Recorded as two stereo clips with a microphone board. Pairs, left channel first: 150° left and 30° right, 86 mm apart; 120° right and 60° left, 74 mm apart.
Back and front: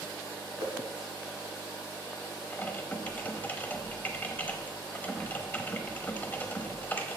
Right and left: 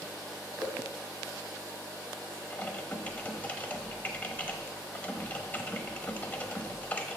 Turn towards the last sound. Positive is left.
turn(degrees=-165)